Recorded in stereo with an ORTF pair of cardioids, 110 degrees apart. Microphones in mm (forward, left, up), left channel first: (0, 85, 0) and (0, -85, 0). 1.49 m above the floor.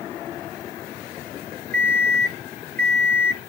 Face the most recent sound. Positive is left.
turn(degrees=10)